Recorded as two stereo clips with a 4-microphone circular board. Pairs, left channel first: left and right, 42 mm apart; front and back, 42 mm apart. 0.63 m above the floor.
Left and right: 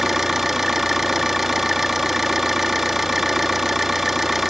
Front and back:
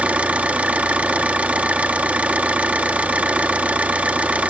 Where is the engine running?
165° right, 0.8 m.